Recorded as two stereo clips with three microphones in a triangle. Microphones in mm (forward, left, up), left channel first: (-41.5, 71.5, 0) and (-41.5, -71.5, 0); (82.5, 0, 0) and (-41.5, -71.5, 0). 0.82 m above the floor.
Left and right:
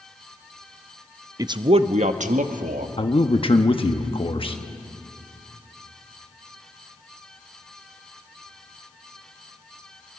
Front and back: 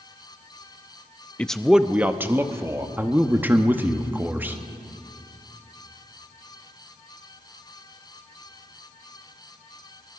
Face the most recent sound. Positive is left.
turn(degrees=135)